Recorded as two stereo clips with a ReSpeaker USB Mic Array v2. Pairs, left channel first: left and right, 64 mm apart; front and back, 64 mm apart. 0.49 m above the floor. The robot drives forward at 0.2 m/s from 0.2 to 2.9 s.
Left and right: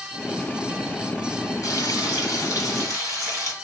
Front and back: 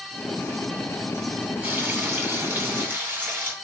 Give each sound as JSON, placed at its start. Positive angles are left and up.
{"t": 1.6, "sound": "frying", "azimuth_deg": 115, "distance_m": 2.5}